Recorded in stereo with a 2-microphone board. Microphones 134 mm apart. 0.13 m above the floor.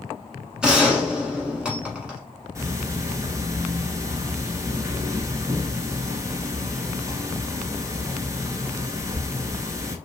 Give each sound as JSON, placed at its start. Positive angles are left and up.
{"t": 0.6, "sound": "a gunshot", "side_deg": -5, "distance_m": 1.0}
{"t": 2.5, "sound": "ticking", "side_deg": -25, "distance_m": 0.6}